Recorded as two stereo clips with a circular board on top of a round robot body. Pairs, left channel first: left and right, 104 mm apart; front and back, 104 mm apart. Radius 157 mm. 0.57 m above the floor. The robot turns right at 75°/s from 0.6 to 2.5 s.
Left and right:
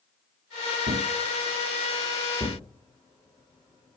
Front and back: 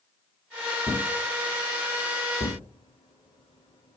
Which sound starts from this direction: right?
A thud, at 0.9 s.